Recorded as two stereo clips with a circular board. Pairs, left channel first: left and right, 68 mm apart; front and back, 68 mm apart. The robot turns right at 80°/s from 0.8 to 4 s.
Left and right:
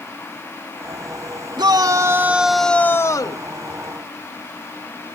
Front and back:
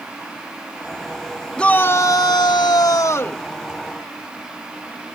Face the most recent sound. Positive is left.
turn(degrees=115)